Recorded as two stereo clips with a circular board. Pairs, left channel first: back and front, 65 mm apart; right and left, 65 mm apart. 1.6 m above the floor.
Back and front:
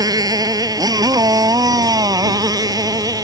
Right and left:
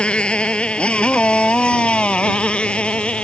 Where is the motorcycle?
15° right.